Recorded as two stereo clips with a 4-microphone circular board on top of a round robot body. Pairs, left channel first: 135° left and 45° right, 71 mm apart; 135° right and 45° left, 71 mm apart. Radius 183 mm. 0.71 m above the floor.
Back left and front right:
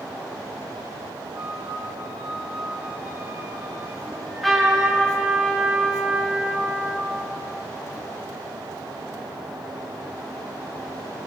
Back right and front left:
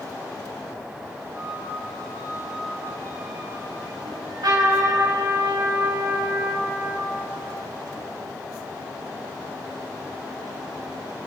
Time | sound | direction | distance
1.3 | a flute | 10° right | 6 m
4.0 | a trumpet | 50° left | 6 m